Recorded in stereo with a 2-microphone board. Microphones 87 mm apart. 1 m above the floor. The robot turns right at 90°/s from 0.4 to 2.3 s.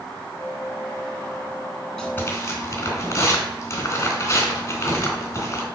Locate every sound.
2.0 s tearing paper: 5° left (ahead or behind), 3 m; by 5.7 s 35° left (ahead or behind), 3 m